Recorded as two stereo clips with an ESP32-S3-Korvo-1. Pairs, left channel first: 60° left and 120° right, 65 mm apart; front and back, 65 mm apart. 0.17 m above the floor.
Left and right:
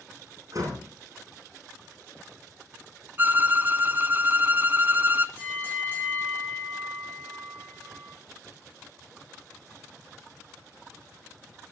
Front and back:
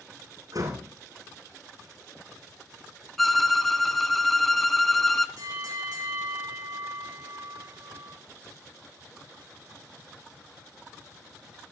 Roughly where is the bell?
Behind.